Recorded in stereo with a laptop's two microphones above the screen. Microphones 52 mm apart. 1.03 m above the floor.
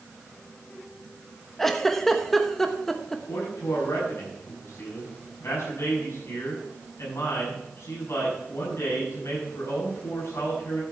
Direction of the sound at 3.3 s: 70° left (ahead or behind).